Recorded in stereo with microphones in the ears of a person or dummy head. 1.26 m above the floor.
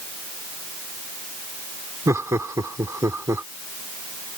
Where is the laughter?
20° right (ahead or behind).